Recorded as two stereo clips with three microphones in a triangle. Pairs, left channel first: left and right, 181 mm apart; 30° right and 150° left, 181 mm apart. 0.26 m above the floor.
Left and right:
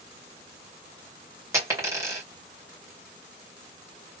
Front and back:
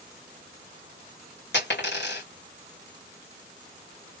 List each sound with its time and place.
1.5 s a dropped coin: 15° right, 2.5 m